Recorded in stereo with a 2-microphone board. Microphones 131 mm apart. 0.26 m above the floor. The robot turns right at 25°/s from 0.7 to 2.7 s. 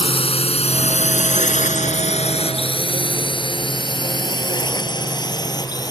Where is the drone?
45° left (ahead or behind); by 5.9 s 30° left (ahead or behind).